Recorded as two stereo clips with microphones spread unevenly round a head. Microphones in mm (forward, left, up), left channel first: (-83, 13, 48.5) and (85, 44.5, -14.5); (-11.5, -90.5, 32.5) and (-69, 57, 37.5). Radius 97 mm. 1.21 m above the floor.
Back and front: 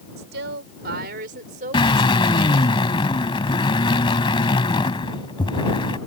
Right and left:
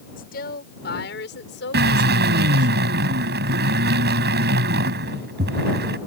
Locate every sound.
0.2 s a woman speaking: 25° right; by 2.7 s 60° right
1.7 s a drill: 130° left